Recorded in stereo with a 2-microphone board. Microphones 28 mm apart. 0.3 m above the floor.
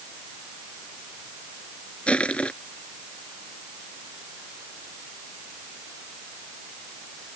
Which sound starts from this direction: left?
Crushing, at 2.1 s.